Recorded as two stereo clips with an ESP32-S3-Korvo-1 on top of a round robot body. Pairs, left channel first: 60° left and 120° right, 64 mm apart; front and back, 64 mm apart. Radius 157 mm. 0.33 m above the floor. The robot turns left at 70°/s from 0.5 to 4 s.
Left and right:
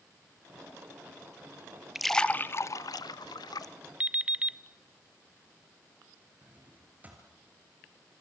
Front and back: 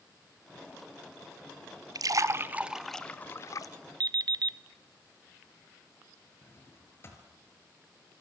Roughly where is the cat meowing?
No cat meowing in this recording.